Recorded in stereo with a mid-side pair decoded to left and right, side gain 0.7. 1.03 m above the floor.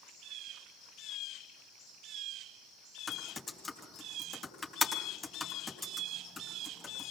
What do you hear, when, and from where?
3.1 s typing on a keyboard: 25° left, 3.5 m